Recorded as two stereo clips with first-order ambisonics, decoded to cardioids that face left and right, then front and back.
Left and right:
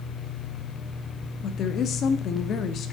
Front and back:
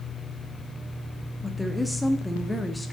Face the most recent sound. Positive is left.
turn(degrees=85)